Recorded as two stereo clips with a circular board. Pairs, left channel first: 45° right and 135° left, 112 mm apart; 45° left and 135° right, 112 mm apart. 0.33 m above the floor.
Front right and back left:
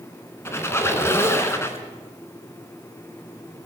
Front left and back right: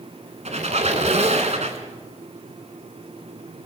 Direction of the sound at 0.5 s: 115° right.